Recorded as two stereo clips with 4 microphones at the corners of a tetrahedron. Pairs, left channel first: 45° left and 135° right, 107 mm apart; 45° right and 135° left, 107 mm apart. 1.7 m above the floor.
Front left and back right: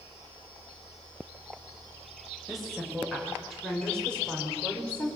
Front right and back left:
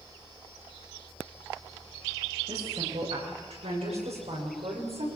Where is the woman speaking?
135° left, 8 m; by 5.1 s 120° left, 6.5 m.